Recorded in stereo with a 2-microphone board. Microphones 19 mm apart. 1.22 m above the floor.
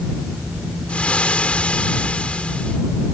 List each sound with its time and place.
0.9 s frying: 80° left